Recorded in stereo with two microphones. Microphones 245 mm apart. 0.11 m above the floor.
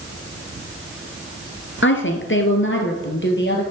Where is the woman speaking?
50° left (ahead or behind), 1.8 m; by 3.6 s 45° left (ahead or behind), 2.5 m.